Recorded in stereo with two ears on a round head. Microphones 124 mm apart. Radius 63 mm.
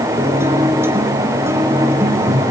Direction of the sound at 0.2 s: 20° right (ahead or behind).